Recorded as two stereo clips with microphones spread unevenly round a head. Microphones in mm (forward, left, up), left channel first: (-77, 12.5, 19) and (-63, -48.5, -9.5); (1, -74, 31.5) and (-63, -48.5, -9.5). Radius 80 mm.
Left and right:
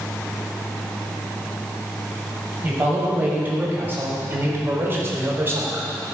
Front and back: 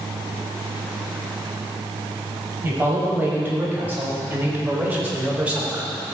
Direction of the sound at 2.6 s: 140° right.